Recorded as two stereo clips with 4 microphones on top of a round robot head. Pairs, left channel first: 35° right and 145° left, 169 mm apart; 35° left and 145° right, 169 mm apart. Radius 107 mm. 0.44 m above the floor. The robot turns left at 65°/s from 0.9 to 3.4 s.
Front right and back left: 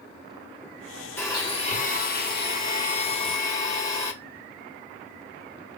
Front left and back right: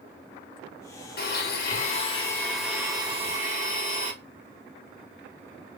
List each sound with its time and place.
1.2 s a blender: 40° left, 1.4 m; by 4.1 s 105° right, 1.4 m